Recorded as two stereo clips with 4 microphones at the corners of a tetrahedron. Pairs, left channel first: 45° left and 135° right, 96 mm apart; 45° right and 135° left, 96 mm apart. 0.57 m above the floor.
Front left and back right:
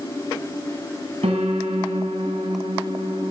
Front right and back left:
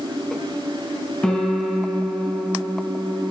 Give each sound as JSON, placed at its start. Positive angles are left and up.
{"t": 1.2, "sound": "a piano", "azimuth_deg": -125, "distance_m": 2.5}